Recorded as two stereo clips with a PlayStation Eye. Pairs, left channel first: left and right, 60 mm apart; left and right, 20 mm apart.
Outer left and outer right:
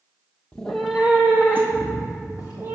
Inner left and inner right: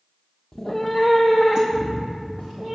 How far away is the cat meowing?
About 0.7 m.